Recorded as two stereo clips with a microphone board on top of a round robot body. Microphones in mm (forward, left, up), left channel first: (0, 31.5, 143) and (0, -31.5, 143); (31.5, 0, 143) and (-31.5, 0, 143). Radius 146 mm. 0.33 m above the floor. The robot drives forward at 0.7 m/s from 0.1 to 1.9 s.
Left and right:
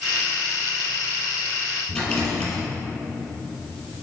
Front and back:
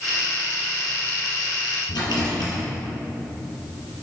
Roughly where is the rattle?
Ahead.